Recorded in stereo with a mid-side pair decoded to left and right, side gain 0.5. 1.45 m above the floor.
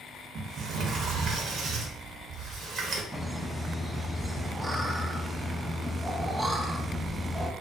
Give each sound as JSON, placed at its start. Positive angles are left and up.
{"t": 0.3, "sound": "a sliding door", "azimuth_deg": -60, "distance_m": 0.7}
{"t": 3.1, "sound": "laughter", "azimuth_deg": -10, "distance_m": 0.6}